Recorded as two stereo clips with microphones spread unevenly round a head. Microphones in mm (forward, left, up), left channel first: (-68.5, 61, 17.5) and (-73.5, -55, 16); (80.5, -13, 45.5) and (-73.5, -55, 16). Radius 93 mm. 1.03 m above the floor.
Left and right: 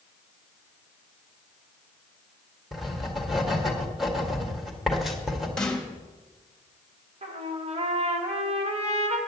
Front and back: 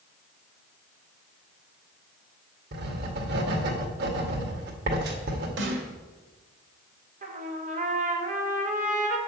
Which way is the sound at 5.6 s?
170° left.